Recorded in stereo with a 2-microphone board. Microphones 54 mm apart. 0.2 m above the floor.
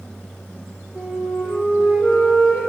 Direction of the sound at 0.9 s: 15° right (ahead or behind).